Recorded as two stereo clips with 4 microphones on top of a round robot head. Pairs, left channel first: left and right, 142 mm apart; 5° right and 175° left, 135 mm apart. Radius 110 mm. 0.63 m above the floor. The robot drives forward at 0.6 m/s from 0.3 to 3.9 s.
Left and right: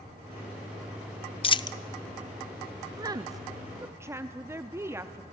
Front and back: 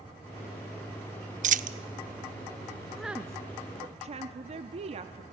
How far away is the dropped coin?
About 0.6 m.